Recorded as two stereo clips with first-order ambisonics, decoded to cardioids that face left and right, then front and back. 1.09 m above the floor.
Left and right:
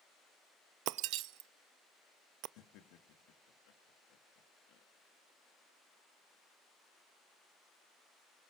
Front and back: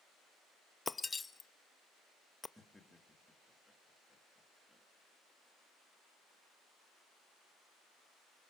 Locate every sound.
0.9 s breaking glass: 75° right, 0.5 m
2.6 s laughter: 85° left, 2 m